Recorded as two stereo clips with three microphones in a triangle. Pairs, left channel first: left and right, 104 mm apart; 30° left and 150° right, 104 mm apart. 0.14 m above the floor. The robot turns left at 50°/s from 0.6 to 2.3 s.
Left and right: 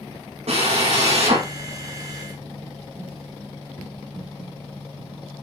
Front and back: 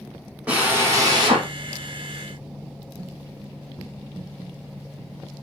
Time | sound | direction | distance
0.5 | a drill | 70° right | 4.5 m